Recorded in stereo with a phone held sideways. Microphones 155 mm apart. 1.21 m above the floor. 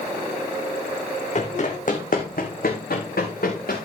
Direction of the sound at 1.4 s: 50° left (ahead or behind).